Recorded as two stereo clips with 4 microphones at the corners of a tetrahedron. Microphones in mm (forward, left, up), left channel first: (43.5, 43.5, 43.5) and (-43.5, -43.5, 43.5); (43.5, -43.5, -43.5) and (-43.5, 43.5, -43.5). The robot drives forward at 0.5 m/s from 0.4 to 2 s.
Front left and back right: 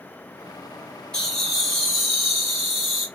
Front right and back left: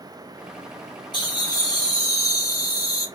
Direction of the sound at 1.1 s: 35° right.